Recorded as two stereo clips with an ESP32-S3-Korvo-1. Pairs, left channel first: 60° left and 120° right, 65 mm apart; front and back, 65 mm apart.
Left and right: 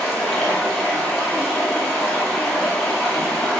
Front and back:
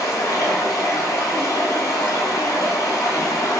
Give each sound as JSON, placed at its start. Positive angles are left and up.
{"t": 0.0, "sound": "running water", "azimuth_deg": -25, "distance_m": 0.8}